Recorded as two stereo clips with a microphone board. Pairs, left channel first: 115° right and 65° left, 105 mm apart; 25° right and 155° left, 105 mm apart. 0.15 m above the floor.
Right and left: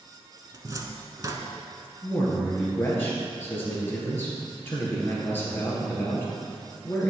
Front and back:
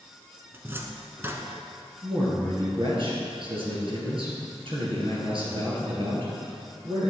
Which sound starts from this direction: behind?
A man speaking, at 2.0 s.